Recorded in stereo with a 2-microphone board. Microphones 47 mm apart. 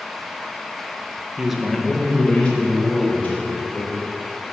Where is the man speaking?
20° right (ahead or behind), 1.2 m; by 3.9 s 35° left (ahead or behind), 4 m.